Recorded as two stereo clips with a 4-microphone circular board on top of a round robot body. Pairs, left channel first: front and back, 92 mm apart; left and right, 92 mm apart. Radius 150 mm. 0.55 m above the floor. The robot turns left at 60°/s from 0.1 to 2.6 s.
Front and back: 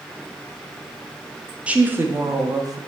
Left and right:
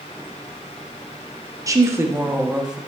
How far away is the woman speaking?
About 0.7 m.